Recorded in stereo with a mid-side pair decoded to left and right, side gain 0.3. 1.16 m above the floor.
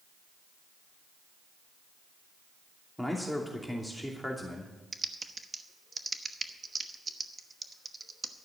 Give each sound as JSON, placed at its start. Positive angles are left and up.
{"t": 3.0, "sound": "a man speaking", "azimuth_deg": 5, "distance_m": 2.5}
{"t": 4.9, "sound": "typing on a keyboard", "azimuth_deg": -40, "distance_m": 1.0}